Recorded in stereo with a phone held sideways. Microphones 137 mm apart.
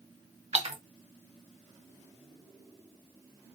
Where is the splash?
55° right (ahead or behind), 1.1 m.